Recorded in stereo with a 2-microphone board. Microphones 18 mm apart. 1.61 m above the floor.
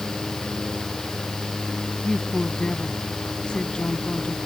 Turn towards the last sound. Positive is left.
turn(degrees=60)  # may be behind; listen again after turning